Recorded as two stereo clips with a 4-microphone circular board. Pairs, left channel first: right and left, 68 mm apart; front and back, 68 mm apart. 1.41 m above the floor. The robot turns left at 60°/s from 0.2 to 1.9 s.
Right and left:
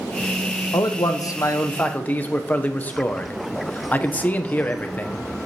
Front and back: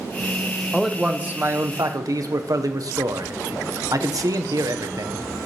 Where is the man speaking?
85° right, 0.5 m; by 5.3 s 155° right, 0.5 m.